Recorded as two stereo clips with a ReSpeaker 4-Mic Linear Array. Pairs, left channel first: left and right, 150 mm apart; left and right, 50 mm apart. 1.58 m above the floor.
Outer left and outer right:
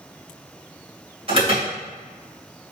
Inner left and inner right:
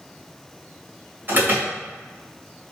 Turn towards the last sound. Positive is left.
turn(degrees=-40)  # may be behind; listen again after turning